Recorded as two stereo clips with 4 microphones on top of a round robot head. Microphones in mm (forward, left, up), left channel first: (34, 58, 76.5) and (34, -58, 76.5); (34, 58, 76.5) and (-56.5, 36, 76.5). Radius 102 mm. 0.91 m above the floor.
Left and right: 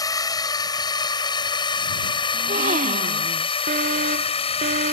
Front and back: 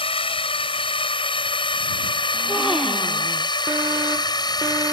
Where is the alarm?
95° right.